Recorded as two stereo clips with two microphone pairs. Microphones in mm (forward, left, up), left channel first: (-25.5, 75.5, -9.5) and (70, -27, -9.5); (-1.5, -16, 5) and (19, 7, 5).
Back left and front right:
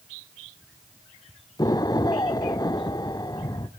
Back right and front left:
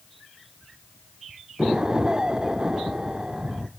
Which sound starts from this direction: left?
An explosion, at 1.6 s.